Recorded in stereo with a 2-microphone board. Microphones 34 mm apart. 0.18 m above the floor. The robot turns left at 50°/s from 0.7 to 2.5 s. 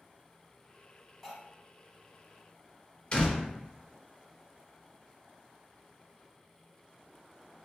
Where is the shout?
No shout in this recording.